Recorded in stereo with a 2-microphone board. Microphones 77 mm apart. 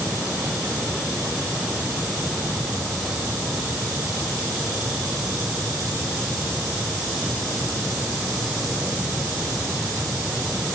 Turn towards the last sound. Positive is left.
No sound to turn to.